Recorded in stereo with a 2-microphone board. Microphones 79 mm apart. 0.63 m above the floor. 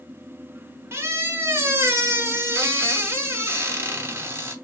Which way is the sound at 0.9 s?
30° right (ahead or behind).